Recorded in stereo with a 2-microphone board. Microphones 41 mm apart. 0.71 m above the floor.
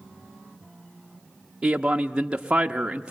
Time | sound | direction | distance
1.6 | a man speaking | 20° right (ahead or behind) | 0.7 m